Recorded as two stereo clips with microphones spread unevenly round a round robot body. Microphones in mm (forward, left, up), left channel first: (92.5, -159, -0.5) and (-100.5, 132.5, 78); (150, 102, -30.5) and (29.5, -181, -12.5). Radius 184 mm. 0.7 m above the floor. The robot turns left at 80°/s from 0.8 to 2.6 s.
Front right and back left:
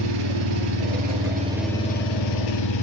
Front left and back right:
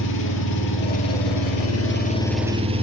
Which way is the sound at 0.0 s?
105° left.